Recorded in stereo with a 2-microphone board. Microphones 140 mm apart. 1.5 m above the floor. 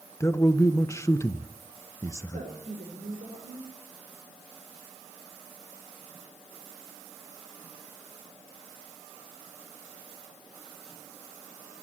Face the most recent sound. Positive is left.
turn(degrees=-85)